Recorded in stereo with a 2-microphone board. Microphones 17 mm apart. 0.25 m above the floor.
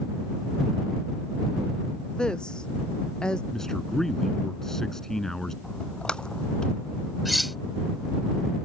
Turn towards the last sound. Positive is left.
turn(degrees=0)  # may be behind; listen again after turning